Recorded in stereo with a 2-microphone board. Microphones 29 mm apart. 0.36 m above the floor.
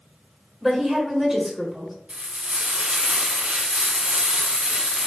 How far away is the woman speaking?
About 1.0 m.